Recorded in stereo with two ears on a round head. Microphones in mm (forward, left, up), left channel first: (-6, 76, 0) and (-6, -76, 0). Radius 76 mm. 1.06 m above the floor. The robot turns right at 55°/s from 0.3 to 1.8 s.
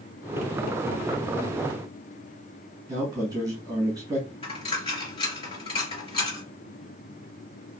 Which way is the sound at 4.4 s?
35° left (ahead or behind).